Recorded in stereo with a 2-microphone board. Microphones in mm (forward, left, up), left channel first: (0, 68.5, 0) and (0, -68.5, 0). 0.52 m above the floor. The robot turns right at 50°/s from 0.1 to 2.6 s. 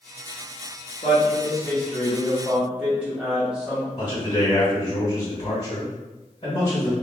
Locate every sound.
1.0 s a man speaking: 110° left, 0.9 m; by 3.9 s 170° right, 0.9 m
4.0 s a man speaking: 40° left (ahead or behind), 1.5 m